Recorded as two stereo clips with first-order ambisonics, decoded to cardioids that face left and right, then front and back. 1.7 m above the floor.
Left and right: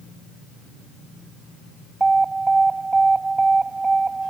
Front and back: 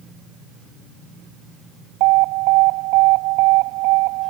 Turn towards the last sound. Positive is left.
turn(degrees=-170)